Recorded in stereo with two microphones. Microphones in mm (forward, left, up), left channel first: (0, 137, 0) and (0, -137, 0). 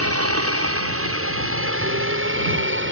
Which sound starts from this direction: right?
A helicopter, at 0.0 s.